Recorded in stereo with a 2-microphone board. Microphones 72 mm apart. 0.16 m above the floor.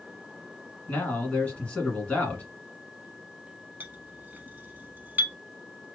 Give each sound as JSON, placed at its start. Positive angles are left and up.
{"t": 0.9, "sound": "a man speaking", "side_deg": 20, "distance_m": 1.4}
{"t": 3.8, "sound": "a clink", "side_deg": -30, "distance_m": 0.8}